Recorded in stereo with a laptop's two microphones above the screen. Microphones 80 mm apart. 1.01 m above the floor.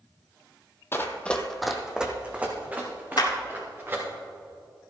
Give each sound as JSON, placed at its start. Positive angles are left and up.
{"t": 0.9, "sound": "running footsteps", "side_deg": 30, "distance_m": 1.2}
{"t": 3.2, "sound": "a clap", "side_deg": 60, "distance_m": 1.8}